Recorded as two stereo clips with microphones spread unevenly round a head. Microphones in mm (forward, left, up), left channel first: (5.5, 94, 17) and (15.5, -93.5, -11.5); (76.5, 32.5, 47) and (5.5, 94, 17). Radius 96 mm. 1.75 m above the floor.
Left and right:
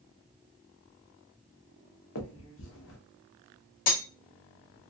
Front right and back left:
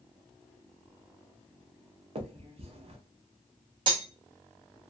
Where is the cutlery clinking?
100° left, 1.2 m.